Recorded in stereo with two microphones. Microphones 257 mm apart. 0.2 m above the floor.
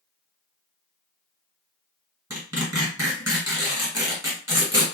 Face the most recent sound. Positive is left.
turn(degrees=-15)  # may be behind; listen again after turning